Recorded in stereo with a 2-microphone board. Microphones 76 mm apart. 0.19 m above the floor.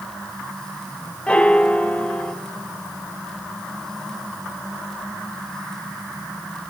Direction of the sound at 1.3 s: 15° left (ahead or behind).